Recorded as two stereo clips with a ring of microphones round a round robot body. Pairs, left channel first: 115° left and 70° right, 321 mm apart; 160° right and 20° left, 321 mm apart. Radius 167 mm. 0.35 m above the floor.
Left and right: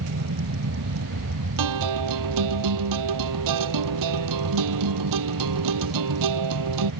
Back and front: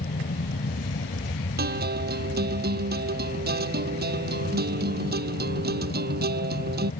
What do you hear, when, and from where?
0.0 s an aircraft: 100° right
1.6 s a guitar: 40° right